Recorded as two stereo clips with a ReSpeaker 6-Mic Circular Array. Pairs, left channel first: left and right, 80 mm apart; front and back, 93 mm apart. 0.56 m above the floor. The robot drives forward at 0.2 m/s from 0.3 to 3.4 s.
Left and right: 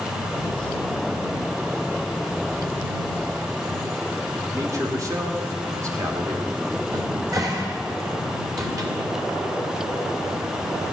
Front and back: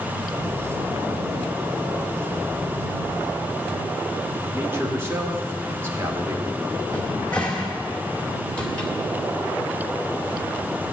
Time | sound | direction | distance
4.5 | a man speaking | 120° right | 1.7 m
6.9 | a cupboard door | 75° right | 1.8 m